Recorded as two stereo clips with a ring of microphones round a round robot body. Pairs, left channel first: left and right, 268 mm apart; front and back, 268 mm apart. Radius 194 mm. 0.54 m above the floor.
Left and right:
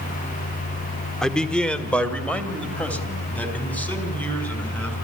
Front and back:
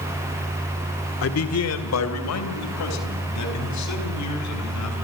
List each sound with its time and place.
1.2 s a man speaking: straight ahead, 1.7 m; by 5.0 s 5° left, 7 m